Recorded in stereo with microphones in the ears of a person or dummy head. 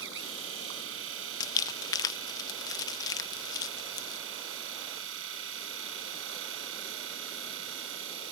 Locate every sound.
0.0 s a machine running: 75° right (ahead or behind)
1.4 s crumpling: 20° left (ahead or behind)